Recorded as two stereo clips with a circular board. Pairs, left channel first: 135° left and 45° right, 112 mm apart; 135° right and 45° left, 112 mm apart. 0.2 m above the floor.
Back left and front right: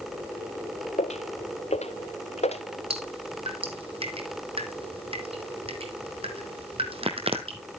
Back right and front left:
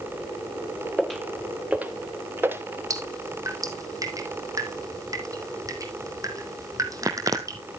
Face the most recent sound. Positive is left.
turn(degrees=-15)